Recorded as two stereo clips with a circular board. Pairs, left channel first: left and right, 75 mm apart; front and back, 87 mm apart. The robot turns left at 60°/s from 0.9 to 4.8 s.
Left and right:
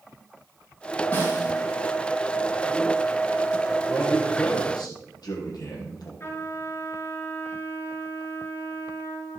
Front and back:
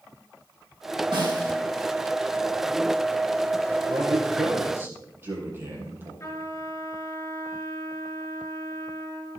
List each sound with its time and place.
1.1 s a snare drum: 155° left, 4 m; by 1.5 s 135° left, 4 m
3.9 s a man speaking: 170° left, 4.5 m; by 6.1 s 115° left, 4.5 m
6.2 s a trumpet: 45° left, 3 m